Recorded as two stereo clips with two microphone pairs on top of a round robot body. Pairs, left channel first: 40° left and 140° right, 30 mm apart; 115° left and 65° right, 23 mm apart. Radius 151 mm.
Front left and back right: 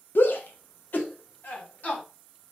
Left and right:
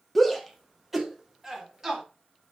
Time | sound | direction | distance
0.1 | a shout | 30° left | 1.6 m